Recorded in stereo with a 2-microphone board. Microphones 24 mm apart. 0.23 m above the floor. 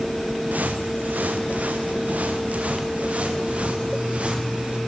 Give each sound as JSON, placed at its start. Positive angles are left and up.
{"t": 0.5, "sound": "footsteps", "side_deg": -85, "distance_m": 3.0}